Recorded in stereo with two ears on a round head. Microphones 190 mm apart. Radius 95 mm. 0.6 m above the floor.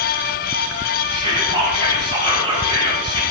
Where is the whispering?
20° right (ahead or behind), 2.5 m.